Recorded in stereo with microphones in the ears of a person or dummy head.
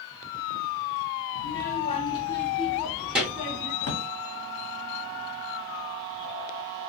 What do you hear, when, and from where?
1.4 s a child speaking: 50° left (ahead or behind), 0.7 m; by 3.7 s 10° right (ahead or behind), 1.5 m
3.8 s a drawer: 40° left (ahead or behind), 0.7 m